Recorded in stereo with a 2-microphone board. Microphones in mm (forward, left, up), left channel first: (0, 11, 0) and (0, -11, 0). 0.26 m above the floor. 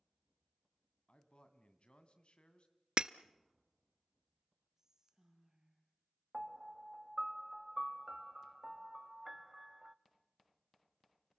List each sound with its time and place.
1.1 s a man speaking: 55° left (ahead or behind), 2 m
3.0 s breaking glass: 45° right (ahead or behind), 0.6 m
4.8 s whispering: 20° right (ahead or behind), 8 m
6.3 s a piano: 20° right (ahead or behind), 0.7 m